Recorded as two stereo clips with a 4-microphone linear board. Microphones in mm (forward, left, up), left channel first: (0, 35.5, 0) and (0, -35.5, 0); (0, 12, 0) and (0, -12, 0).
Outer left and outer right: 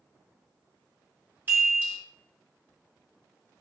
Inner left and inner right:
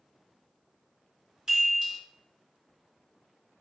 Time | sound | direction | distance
1.5 | a chime | 25° right (ahead or behind) | 1.5 m